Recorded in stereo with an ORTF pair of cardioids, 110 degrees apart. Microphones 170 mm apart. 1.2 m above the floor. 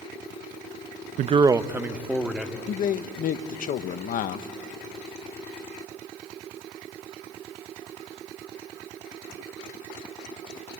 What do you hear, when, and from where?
1.2 s a man speaking: 50° right, 0.5 m; by 2.6 s 5° right, 2.5 m
2.7 s a man speaking: 55° left, 1.1 m